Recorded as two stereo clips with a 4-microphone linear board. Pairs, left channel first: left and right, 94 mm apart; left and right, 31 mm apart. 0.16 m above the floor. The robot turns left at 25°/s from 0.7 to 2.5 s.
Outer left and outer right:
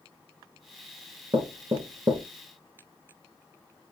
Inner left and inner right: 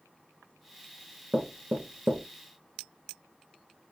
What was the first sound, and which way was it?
Knocking, 60° right (ahead or behind).